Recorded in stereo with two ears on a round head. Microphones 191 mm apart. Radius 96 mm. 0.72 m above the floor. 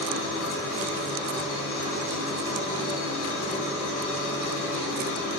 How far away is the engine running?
About 2 m.